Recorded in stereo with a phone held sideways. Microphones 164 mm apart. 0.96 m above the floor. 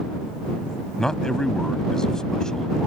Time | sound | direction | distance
1.0 | a man speaking | 5° left (ahead or behind) | ?